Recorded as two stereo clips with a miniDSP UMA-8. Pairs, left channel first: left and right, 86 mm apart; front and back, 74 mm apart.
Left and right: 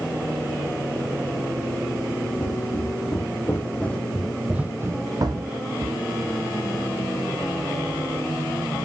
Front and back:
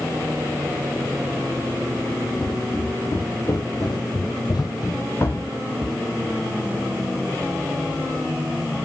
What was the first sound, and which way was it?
Footsteps, 40° left.